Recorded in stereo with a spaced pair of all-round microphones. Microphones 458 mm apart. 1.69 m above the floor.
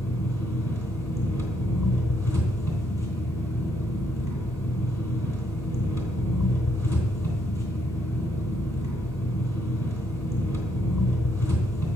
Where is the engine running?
45° left (ahead or behind), 2.5 m.